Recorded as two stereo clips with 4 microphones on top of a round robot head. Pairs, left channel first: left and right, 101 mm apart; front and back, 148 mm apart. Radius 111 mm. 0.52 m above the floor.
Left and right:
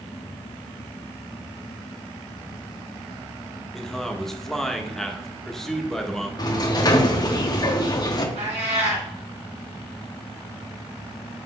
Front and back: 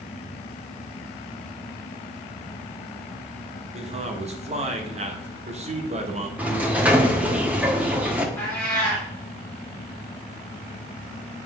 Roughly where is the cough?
I don't hear a cough.